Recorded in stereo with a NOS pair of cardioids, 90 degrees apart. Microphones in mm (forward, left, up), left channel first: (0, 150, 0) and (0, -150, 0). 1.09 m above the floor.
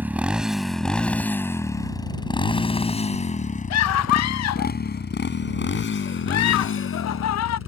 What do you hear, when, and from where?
0.0 s a motorcycle: 5° right; by 7.7 s 50° left
3.7 s a scream: 65° left